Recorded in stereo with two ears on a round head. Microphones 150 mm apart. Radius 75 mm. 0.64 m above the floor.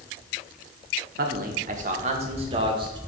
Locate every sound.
1.2 s a man speaking: 55° right (ahead or behind), 1.1 m; by 3.0 s 25° right (ahead or behind), 1.6 m